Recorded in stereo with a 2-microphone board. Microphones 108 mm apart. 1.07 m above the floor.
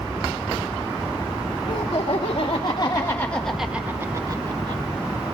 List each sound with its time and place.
1.7 s laughter: 65° left (ahead or behind), 2 m; by 4.8 s 45° right (ahead or behind), 1.7 m